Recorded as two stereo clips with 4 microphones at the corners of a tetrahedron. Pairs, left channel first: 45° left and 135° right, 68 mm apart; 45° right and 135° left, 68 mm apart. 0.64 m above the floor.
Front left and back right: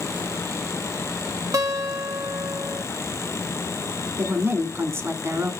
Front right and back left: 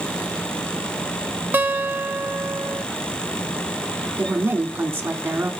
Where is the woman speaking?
175° right, 1.3 m.